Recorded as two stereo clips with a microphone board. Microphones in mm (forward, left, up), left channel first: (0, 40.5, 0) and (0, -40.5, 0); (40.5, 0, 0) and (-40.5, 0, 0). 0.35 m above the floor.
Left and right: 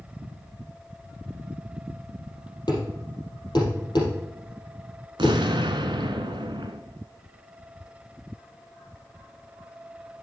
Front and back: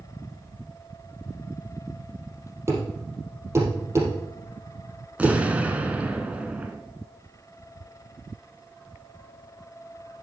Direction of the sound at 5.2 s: 105° right.